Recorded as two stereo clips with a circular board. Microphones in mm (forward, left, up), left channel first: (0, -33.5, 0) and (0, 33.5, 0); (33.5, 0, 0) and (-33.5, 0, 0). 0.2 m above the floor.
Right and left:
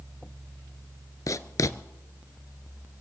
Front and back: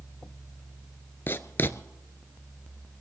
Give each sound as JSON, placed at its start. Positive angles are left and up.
{"t": 1.3, "sound": "writing", "azimuth_deg": -55, "distance_m": 0.7}